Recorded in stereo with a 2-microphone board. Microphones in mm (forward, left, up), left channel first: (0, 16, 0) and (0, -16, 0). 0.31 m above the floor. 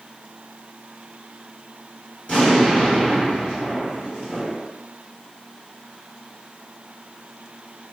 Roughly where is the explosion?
Left.